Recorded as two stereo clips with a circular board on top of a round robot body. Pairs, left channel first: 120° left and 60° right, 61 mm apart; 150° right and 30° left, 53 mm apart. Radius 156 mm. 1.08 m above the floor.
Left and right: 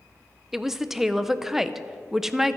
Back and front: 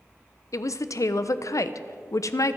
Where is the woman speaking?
145° right, 0.7 m.